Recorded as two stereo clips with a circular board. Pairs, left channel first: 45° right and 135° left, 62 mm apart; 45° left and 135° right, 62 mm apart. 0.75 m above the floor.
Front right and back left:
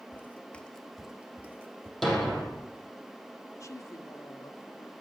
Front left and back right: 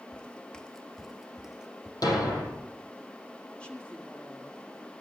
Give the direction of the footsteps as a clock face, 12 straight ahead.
1 o'clock.